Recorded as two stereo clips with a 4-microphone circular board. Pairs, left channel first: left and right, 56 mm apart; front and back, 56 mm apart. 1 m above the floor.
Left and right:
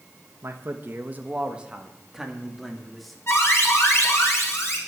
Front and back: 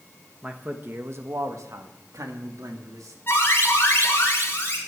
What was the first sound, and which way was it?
A man speaking, 115° right.